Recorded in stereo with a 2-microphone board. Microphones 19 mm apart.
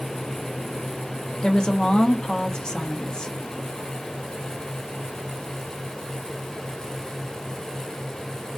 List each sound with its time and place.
1.4 s a woman speaking: 50° left (ahead or behind), 0.7 m